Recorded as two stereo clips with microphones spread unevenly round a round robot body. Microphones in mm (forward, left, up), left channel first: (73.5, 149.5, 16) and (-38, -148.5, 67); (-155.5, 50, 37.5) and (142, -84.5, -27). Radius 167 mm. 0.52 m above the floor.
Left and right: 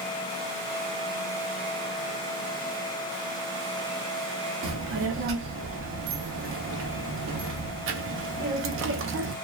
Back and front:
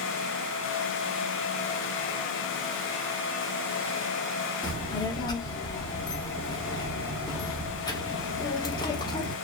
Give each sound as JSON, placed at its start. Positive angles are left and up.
{"t": 4.6, "sound": "a child speaking", "azimuth_deg": -115, "distance_m": 0.6}